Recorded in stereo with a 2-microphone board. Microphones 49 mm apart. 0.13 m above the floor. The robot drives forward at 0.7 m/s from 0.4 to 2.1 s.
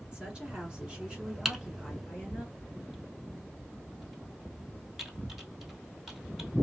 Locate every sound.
0.1 s a woman speaking: 20° right (ahead or behind), 1.4 m; by 2.5 s 15° right (ahead or behind), 1.8 m
1.4 s typing on a keyboard: 5° right (ahead or behind), 0.6 m